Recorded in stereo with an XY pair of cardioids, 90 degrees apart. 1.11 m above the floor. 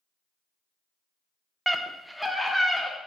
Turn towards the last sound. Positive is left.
turn(degrees=5)